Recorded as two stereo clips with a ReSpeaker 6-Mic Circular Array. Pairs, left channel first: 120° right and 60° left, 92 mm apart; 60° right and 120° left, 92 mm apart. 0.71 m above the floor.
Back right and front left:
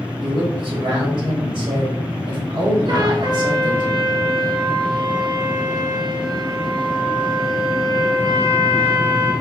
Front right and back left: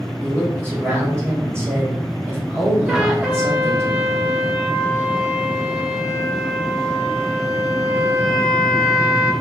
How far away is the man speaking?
About 1.5 m.